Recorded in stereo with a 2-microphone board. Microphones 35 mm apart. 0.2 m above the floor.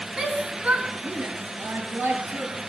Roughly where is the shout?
Centre.